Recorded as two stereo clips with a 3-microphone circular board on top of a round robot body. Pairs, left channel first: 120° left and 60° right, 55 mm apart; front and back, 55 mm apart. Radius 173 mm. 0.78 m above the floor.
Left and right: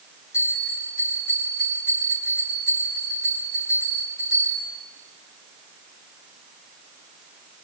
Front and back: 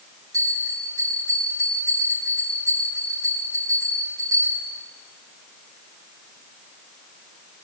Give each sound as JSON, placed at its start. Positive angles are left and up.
{"t": 0.3, "sound": "a bell", "azimuth_deg": 160, "distance_m": 10.0}